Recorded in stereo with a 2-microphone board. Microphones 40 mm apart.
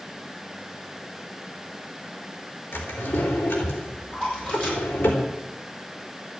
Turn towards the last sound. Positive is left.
turn(degrees=30)  # may be behind; listen again after turning